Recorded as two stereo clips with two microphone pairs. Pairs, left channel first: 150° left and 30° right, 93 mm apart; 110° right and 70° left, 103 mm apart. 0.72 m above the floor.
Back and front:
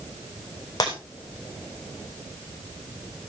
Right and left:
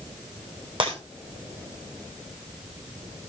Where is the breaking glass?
105° left, 7 m.